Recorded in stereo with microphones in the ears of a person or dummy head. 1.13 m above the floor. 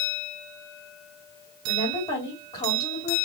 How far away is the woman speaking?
About 3 m.